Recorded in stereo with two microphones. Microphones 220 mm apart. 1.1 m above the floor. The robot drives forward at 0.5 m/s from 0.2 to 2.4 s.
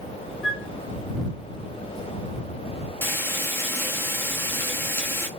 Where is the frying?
10° left (ahead or behind), 0.8 m.